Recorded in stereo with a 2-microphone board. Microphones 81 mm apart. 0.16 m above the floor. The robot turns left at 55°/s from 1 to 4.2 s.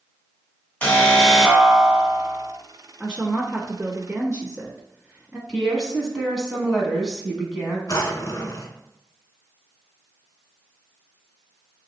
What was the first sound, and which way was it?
An alarm, 35° left.